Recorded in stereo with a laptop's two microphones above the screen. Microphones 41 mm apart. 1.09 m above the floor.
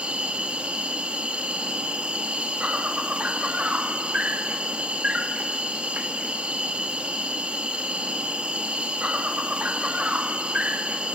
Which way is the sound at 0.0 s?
30° right (ahead or behind).